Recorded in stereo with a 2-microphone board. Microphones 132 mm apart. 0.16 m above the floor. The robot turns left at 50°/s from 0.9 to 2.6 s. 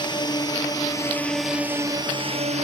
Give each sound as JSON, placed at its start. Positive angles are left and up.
{"t": 0.0, "sound": "a drone", "side_deg": 35}